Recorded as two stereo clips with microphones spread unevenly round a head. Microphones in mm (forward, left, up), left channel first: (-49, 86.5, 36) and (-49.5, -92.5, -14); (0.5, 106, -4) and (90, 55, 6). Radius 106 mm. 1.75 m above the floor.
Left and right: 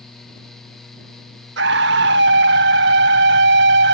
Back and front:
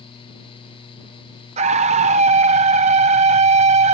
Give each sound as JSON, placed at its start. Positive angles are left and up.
{"t": 1.6, "sound": "a scream", "azimuth_deg": -45}